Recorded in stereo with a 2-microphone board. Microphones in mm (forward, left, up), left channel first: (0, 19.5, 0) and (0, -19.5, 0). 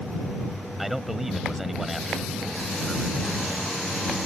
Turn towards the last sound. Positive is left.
turn(degrees=-5)  # may be behind; listen again after turning